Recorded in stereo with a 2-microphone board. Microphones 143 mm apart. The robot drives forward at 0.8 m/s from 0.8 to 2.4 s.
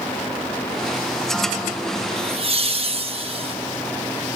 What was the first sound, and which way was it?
Laughter, 45° right (ahead or behind).